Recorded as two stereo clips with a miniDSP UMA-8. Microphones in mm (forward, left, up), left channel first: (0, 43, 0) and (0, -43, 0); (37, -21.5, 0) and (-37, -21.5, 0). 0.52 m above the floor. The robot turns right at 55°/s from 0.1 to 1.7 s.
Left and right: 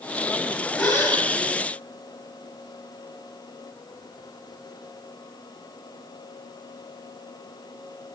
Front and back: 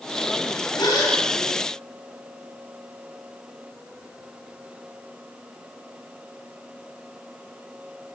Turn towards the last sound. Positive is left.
turn(degrees=70)